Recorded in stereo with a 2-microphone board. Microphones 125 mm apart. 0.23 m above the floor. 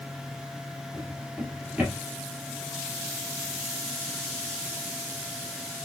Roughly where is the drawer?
Centre.